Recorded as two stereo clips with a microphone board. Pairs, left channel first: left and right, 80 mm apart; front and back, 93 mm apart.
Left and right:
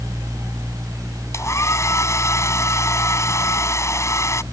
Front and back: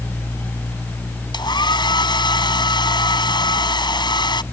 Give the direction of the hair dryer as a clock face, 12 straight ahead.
11 o'clock.